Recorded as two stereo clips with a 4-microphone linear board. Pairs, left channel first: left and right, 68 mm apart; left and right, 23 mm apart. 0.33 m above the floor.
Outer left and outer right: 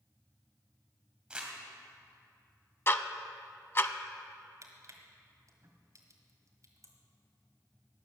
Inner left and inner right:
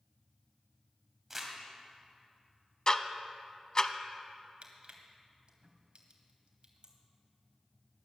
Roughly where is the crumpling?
Centre.